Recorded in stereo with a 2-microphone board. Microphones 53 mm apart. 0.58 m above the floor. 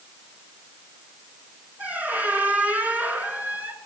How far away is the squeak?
About 2.5 m.